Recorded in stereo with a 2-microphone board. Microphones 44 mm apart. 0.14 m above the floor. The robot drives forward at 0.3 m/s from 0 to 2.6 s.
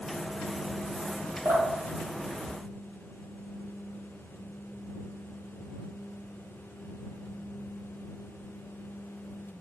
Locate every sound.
1.4 s dripping: 60° right (ahead or behind), 1.1 m; by 3.3 s 50° right (ahead or behind), 1.3 m